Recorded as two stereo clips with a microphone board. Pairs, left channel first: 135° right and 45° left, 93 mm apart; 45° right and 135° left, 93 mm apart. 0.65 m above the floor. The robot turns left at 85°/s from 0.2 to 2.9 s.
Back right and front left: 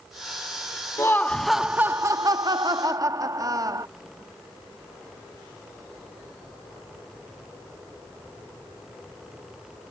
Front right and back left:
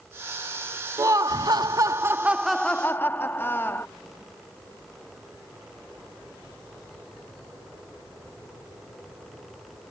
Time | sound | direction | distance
1.0 | laughter | straight behind | ?